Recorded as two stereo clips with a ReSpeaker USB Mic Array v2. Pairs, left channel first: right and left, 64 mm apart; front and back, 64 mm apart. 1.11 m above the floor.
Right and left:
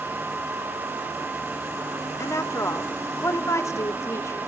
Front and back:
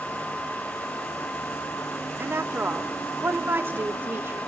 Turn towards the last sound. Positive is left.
turn(degrees=-125)